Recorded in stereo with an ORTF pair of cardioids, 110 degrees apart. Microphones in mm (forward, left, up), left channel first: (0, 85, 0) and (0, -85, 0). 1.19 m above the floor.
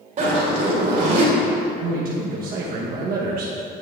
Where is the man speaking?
60° right, 1.3 m.